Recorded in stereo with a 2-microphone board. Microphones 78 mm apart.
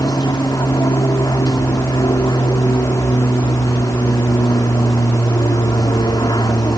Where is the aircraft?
60° left (ahead or behind).